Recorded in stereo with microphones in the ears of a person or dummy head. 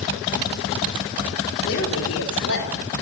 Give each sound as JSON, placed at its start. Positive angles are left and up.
{"t": 1.7, "sound": "a woman speaking", "side_deg": 70, "distance_m": 4.0}